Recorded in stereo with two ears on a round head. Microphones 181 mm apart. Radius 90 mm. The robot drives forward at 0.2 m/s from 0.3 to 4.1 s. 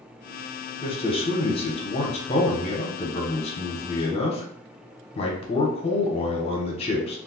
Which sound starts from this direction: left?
A man speaking, at 0.8 s.